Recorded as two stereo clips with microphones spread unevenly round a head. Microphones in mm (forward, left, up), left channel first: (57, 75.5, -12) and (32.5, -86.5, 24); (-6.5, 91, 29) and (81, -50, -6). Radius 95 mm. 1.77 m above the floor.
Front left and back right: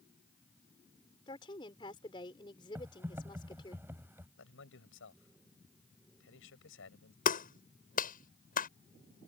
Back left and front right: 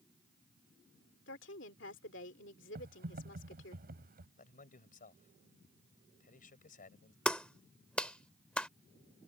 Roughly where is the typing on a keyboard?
Ahead right.